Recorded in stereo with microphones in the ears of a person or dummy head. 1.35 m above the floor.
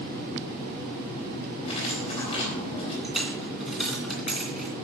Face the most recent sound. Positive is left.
turn(degrees=0)  # may be behind; listen again after turning